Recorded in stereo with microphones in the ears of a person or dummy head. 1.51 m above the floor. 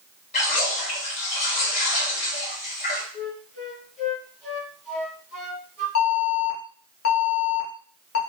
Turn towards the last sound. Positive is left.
turn(degrees=75)  # may be behind; listen again after turning